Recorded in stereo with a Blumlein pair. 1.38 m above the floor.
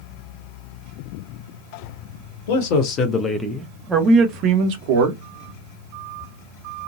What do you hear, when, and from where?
2.5 s a man speaking: 50° left, 1.1 m; by 5.2 s 50° right, 1.6 m